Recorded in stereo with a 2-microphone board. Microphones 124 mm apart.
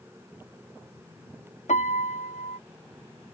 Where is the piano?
75° left (ahead or behind).